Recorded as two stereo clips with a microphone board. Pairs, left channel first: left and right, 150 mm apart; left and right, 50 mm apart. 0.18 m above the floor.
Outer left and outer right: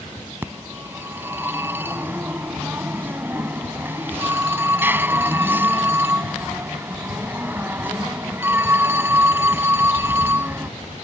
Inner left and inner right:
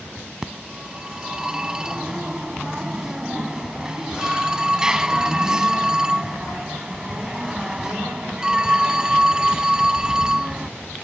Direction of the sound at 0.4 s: 15° right (ahead or behind).